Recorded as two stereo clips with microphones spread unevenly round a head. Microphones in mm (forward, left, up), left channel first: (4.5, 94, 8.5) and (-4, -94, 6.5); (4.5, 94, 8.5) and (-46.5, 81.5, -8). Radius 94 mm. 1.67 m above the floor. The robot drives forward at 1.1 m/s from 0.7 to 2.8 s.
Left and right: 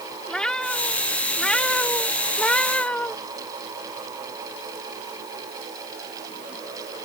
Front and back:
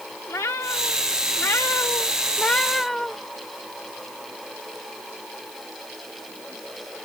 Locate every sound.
0.3 s a cat meowing: straight ahead; by 3.1 s 15° left